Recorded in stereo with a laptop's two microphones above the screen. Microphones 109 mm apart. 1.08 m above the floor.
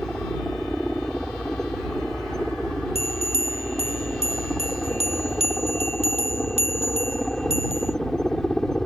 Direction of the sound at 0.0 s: 5° left (ahead or behind).